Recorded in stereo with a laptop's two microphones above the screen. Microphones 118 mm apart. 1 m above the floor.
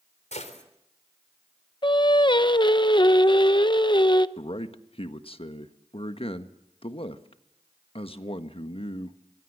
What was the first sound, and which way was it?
A gunshot, 75° left (ahead or behind).